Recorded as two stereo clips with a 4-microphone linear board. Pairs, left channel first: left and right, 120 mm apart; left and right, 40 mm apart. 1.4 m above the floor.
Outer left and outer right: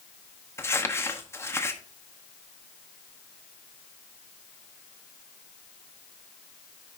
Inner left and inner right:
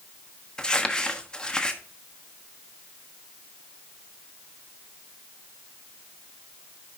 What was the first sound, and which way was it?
Crumpling, 20° left (ahead or behind).